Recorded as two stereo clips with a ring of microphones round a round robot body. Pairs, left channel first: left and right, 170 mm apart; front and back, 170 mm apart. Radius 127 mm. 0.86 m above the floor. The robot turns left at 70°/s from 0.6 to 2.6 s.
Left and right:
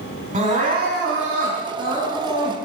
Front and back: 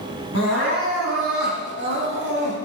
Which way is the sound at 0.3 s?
45° right.